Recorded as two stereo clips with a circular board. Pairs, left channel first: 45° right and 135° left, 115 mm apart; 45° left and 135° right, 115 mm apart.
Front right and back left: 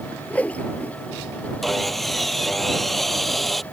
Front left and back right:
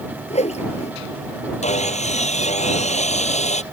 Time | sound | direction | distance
0.3 | a whoosh | 30° left | ?
1.6 | sawing | 45° left | ?